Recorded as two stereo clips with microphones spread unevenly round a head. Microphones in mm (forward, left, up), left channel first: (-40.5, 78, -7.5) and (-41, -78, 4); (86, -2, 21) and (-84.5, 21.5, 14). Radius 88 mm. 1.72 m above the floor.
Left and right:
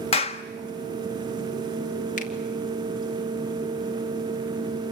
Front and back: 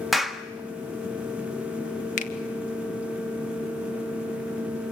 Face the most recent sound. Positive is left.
turn(degrees=40)